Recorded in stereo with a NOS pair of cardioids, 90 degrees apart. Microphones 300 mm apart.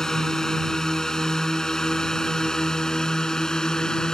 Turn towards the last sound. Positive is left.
turn(degrees=0)